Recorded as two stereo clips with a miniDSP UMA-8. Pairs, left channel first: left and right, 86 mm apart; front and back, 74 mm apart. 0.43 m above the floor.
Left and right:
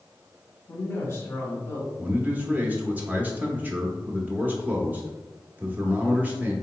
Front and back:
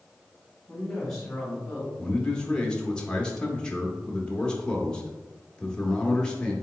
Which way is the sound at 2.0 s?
60° right.